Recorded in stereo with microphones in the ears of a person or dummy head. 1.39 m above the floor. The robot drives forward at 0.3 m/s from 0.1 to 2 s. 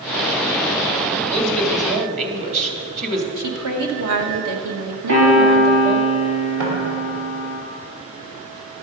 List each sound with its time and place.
1.3 s a woman speaking: 35° right (ahead or behind), 3 m; by 3.3 s 40° right (ahead or behind), 2.5 m
3.4 s a woman speaking: 75° right (ahead or behind), 1.7 m
5.1 s a piano: 75° right (ahead or behind), 5 m
6.6 s knocking: 70° right (ahead or behind), 5 m